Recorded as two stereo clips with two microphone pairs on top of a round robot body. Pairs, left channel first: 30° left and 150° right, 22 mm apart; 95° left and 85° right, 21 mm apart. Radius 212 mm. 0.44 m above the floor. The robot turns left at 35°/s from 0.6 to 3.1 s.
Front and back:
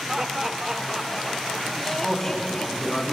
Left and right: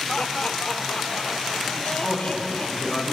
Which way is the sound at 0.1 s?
145° left.